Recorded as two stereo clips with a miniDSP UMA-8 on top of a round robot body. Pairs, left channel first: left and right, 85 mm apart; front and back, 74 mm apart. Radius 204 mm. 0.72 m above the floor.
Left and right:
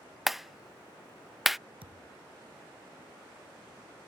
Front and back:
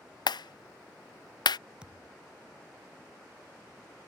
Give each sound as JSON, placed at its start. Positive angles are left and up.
{"t": 0.3, "sound": "a clap", "azimuth_deg": -5}
{"t": 1.8, "sound": "a thud", "azimuth_deg": -100}